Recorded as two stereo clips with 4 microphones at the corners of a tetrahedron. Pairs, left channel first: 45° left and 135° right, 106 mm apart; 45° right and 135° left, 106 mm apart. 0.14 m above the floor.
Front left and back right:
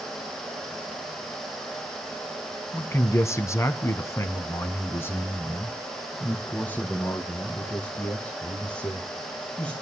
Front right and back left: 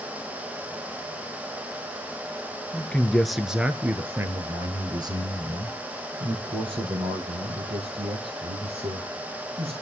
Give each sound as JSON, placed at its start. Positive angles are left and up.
{"t": 2.7, "sound": "a man speaking", "azimuth_deg": 15, "distance_m": 1.3}